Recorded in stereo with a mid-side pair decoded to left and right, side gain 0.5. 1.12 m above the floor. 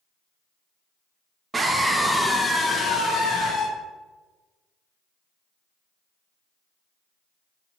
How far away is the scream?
About 0.9 m.